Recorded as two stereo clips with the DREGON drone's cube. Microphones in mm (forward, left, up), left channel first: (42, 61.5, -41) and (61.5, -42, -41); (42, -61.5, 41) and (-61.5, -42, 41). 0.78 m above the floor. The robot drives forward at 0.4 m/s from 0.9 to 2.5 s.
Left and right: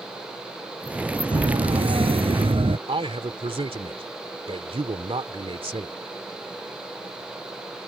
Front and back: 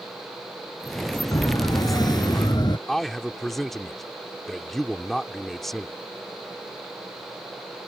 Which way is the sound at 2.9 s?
100° right.